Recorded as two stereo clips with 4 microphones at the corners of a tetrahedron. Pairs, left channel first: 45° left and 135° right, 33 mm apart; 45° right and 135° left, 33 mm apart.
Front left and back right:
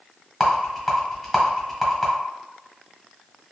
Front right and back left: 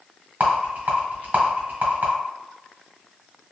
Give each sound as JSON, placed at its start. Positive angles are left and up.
{"t": 0.4, "sound": "a rattle", "azimuth_deg": 130, "distance_m": 1.4}